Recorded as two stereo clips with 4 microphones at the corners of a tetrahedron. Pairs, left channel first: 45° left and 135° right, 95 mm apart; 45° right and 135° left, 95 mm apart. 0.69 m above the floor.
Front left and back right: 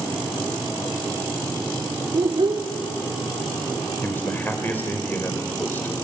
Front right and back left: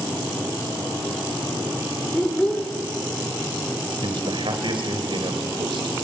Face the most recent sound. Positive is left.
turn(degrees=115)